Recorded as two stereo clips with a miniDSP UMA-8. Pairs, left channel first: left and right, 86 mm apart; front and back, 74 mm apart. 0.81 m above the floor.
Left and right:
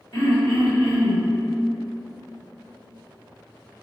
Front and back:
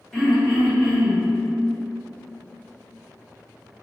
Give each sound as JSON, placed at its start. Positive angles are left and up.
{"t": 0.1, "sound": "throat clearing", "azimuth_deg": 85, "distance_m": 1.8}